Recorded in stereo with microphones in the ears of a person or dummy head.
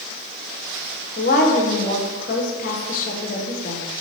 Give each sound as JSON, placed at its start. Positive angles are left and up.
{"t": 1.2, "sound": "a woman speaking", "side_deg": 50, "distance_m": 1.3}